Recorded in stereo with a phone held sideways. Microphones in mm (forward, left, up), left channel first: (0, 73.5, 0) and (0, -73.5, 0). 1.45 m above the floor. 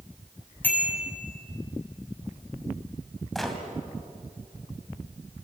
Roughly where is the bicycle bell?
Centre.